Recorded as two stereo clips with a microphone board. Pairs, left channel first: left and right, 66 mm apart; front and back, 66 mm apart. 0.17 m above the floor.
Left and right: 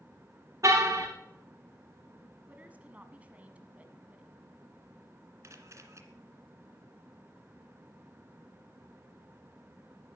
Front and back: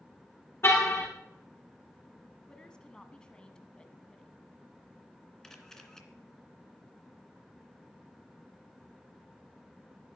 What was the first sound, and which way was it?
A car horn, 50° right.